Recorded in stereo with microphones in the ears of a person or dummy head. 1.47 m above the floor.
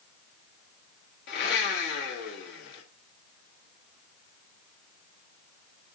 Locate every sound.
1.3 s a blender: 55° left (ahead or behind), 1.9 m